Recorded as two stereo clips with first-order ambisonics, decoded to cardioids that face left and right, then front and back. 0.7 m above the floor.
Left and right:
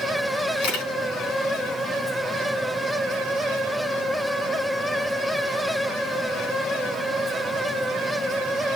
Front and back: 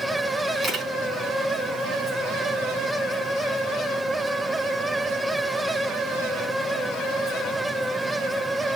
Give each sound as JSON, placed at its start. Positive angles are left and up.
{"t": 0.6, "sound": "a camera shutter", "azimuth_deg": 110, "distance_m": 4.0}